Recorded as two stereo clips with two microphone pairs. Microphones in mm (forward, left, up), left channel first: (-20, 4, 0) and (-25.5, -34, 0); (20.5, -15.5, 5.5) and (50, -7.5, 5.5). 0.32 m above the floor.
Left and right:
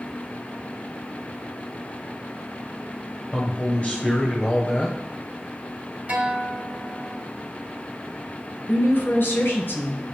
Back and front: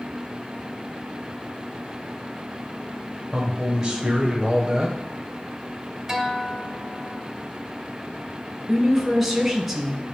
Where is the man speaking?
75° left, 1.2 m.